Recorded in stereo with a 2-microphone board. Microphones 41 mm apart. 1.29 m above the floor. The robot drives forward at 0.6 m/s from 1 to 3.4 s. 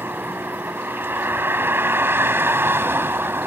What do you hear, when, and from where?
0.0 s a vehicle: 65° right (ahead or behind); by 3.5 s 75° right (ahead or behind)